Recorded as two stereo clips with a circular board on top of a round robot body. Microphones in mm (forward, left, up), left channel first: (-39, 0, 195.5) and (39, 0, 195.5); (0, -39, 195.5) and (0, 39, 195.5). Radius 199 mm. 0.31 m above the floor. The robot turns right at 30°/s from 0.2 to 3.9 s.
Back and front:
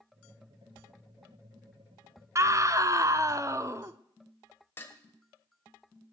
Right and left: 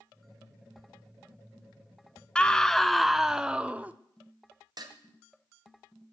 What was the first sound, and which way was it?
A scream, 20° right.